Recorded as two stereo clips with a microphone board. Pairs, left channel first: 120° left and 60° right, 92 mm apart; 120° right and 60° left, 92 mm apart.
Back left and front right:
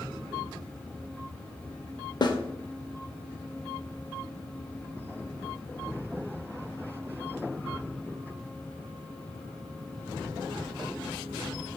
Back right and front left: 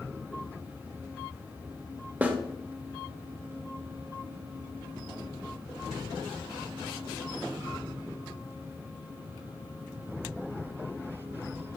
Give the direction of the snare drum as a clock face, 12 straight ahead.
8 o'clock.